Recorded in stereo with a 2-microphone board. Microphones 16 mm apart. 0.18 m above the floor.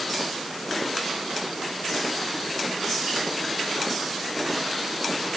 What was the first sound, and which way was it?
Only background noise.